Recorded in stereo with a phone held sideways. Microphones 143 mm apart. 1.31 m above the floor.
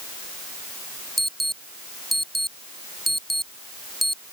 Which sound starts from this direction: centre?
An alarm, at 1.2 s.